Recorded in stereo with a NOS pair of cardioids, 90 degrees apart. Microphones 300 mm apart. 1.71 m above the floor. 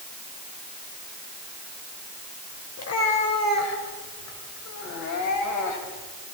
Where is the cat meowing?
55° left, 3.5 m; by 6.1 s 70° left, 5.5 m.